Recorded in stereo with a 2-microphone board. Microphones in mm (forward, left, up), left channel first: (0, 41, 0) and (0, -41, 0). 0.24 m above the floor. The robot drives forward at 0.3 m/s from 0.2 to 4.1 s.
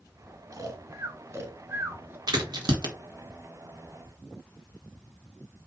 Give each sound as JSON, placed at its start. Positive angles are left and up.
{"t": 0.5, "sound": "snoring", "side_deg": -45, "distance_m": 0.7}
{"t": 2.3, "sound": "a crack", "side_deg": -60, "distance_m": 1.5}